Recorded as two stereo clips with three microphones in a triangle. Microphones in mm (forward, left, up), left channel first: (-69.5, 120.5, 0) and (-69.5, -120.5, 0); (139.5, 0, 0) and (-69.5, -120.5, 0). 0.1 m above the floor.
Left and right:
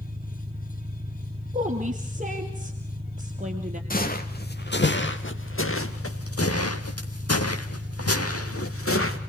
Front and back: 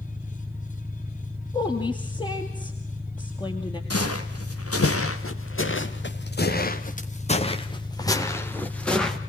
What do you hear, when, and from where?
0.0 s an engine running: 80° right, 1.4 m
1.5 s a woman speaking: 40° right, 2.5 m
3.9 s footsteps: 40° left, 3 m; by 9.2 s 120° left, 3 m